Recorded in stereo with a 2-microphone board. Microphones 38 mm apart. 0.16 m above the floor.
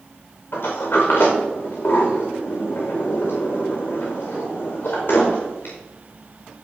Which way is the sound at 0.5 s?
65° left (ahead or behind).